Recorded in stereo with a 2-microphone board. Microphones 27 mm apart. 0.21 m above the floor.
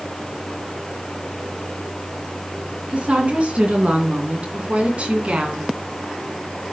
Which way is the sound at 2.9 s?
50° right (ahead or behind).